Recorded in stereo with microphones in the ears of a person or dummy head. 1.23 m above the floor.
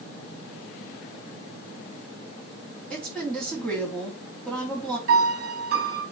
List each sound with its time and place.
2.9 s a woman speaking: 10° left (ahead or behind), 3 m
5.1 s a piano: 55° right (ahead or behind), 2 m